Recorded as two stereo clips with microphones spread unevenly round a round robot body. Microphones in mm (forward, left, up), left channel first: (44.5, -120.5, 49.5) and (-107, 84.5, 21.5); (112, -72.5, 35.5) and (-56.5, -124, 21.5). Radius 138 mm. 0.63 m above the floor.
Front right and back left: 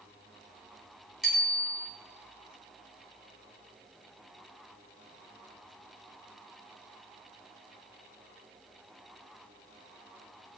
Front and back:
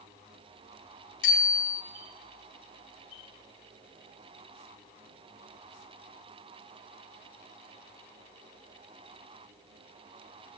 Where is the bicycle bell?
40° left, 4 m.